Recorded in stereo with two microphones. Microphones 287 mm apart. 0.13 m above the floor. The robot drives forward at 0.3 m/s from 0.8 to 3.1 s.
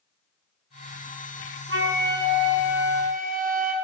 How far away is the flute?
About 0.6 m.